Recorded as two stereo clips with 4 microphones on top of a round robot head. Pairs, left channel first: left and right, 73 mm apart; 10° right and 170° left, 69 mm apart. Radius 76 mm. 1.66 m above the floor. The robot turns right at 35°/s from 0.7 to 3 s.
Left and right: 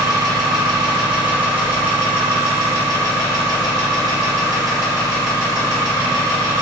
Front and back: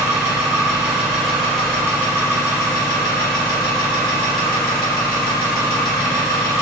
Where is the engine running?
125° right, 0.8 m; by 6.6 s 40° right, 0.8 m.